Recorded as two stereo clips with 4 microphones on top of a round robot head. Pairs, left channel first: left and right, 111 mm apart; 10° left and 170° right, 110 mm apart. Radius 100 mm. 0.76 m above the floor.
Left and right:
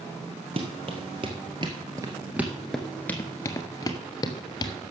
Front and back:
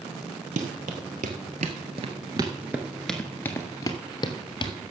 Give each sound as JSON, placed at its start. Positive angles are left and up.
{"t": 0.6, "sound": "running footsteps", "azimuth_deg": -145, "distance_m": 1.4}